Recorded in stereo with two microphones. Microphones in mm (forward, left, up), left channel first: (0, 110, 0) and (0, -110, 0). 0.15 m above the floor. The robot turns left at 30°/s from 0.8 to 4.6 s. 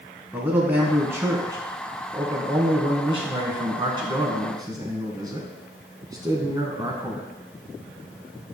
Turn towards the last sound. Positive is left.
turn(degrees=-15)  # may be behind; listen again after turning